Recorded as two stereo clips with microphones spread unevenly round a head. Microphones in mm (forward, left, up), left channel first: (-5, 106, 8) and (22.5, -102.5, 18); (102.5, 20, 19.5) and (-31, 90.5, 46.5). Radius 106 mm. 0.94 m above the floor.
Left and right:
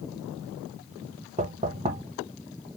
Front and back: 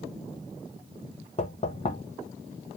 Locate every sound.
1.4 s knocking: 30° right, 0.8 m